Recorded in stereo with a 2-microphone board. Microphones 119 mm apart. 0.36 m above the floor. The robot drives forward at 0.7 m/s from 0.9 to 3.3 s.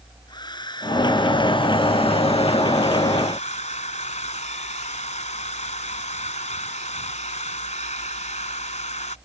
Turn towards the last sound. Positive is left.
turn(degrees=80)